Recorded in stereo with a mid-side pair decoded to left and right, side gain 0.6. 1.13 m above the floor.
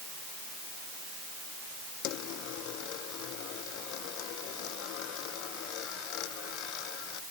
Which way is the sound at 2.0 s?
70° left.